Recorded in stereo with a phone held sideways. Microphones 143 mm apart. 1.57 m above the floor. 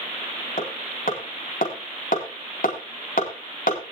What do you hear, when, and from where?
0.6 s hammering: 80° left, 4 m